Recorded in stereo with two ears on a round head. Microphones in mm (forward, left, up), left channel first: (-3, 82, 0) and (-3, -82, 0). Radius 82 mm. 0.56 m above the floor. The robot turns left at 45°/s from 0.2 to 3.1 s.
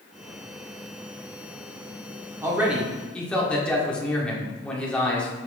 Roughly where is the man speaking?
Behind.